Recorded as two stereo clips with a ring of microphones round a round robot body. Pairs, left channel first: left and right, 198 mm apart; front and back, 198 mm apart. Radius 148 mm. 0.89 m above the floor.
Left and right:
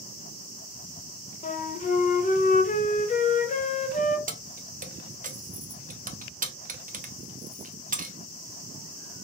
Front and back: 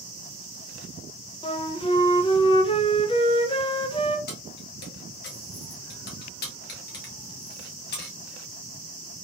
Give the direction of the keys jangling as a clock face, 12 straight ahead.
1 o'clock.